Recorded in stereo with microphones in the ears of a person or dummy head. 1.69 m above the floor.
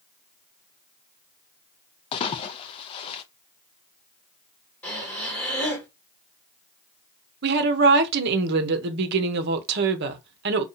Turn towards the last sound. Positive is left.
turn(degrees=-55)  # may be behind; listen again after turning